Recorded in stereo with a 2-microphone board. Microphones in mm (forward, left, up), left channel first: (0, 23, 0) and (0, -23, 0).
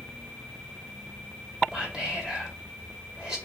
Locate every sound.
1.7 s whispering: 10° right (ahead or behind), 2 m